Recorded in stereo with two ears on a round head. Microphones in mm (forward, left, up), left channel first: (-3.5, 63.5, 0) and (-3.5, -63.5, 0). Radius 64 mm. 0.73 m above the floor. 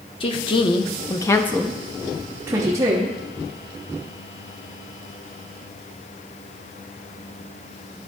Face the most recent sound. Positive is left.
turn(degrees=-25)  # may be behind; listen again after turning